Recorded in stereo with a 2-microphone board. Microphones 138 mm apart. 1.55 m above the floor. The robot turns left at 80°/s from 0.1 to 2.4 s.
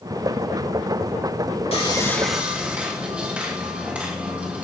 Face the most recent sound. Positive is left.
turn(degrees=-10)